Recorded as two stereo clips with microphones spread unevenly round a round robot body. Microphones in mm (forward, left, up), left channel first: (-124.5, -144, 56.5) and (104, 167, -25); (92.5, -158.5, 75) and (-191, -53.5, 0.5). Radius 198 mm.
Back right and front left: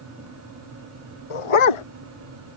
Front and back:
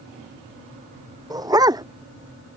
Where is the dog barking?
120° right.